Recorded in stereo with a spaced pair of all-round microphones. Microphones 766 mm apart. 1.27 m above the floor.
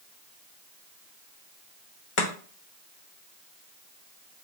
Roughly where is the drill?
I don't hear a drill.